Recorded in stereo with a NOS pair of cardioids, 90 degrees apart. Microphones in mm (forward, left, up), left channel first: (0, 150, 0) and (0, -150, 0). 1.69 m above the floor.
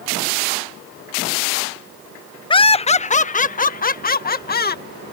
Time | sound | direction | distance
2.5 | laughter | 15° left | ?